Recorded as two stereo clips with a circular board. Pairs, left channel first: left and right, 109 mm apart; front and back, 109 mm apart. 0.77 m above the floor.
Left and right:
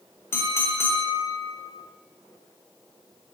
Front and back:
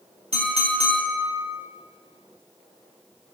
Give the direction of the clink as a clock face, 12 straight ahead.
7 o'clock.